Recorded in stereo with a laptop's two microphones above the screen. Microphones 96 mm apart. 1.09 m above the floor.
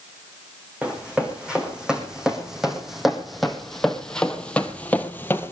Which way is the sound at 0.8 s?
10° right (ahead or behind).